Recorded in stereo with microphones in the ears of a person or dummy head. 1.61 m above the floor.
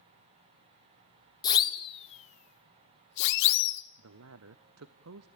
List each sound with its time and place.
1.4 s a siren: 25° left (ahead or behind), 2 m; by 3.8 s 80° left, 1.9 m
4.0 s a man speaking: 75° right (ahead or behind), 0.7 m